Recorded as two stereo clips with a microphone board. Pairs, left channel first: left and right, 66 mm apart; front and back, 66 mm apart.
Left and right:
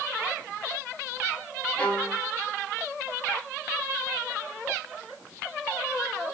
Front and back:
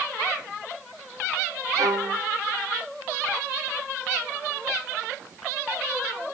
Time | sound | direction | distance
1.8 | a violin | 165° left | 1.0 m